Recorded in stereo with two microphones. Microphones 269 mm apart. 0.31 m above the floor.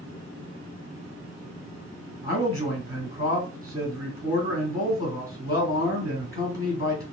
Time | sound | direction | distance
2.2 | a man speaking | 10° right (ahead or behind) | 1.6 m